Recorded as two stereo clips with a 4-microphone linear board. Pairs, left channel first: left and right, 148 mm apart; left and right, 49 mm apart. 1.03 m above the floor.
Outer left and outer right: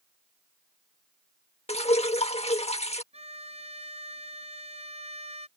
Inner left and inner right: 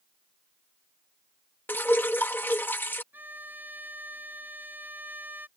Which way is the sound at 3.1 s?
45° right (ahead or behind).